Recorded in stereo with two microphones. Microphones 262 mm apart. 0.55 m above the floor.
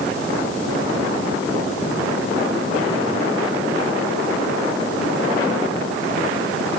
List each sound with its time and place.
Only background noise.